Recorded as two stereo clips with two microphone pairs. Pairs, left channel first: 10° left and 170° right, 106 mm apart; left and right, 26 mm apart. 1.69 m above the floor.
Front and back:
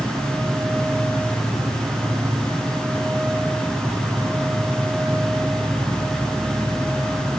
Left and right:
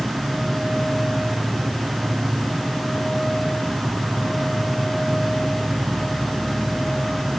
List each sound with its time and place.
0.0 s an insect: 90° right, 1.8 m